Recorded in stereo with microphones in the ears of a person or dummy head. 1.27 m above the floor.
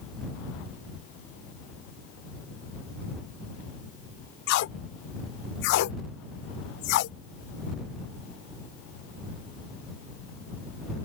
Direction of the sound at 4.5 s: 50° left (ahead or behind).